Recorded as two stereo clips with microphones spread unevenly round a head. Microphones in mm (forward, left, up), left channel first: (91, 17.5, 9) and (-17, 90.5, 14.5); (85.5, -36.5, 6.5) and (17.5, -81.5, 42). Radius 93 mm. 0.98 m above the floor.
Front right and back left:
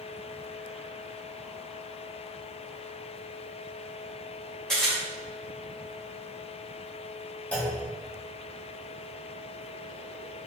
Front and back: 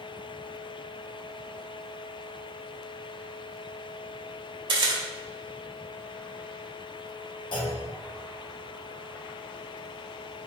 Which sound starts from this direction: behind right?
A camera shutter, at 4.7 s.